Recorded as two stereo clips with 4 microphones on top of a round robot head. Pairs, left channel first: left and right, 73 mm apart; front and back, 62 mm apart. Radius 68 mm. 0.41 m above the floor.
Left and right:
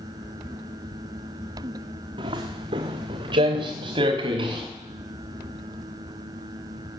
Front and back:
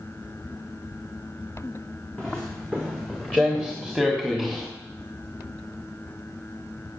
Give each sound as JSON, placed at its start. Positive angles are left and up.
{"t": 2.2, "sound": "footsteps", "azimuth_deg": -80, "distance_m": 2.0}